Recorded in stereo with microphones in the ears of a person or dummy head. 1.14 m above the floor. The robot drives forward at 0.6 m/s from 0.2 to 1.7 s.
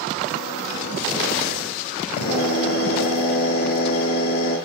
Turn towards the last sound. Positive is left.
turn(degrees=55)  # may be behind; listen again after turning